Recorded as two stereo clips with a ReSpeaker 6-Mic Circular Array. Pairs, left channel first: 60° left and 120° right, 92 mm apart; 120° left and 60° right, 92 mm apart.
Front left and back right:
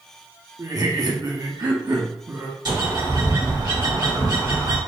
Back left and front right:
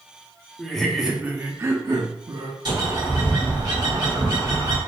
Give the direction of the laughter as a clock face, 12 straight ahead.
5 o'clock.